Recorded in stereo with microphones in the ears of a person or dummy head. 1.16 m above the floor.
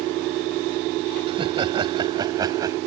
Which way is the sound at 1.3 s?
30° right (ahead or behind).